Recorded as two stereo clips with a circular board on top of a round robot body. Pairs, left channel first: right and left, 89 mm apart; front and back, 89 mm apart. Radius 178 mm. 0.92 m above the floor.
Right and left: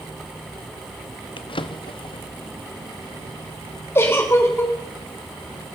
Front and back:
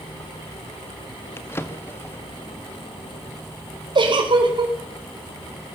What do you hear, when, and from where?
1.4 s a drawer: 65° right, 1.1 m
4.0 s a giggle: 155° right, 4 m